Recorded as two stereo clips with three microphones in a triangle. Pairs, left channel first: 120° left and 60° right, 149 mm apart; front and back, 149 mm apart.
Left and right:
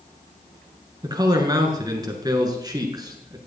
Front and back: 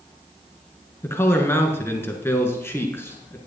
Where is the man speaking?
50° right, 1.6 m.